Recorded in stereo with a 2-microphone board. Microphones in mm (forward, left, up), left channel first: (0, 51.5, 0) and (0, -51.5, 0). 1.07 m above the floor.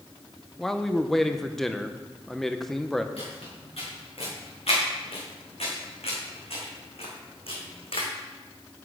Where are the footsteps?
70° left (ahead or behind), 4.5 m; by 8.1 s 65° left (ahead or behind), 2.5 m.